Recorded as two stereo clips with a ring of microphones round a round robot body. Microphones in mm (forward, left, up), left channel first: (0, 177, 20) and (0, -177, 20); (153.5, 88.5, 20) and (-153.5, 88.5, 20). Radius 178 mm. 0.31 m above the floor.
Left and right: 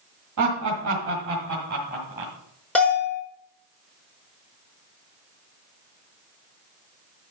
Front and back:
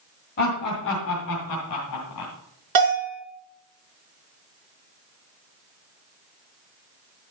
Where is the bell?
175° left, 4.5 m.